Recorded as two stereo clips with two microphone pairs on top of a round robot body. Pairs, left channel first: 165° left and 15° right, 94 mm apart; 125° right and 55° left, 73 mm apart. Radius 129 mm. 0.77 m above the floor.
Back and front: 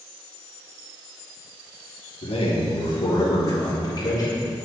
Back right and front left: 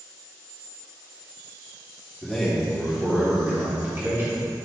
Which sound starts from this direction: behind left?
A man speaking, at 2.2 s.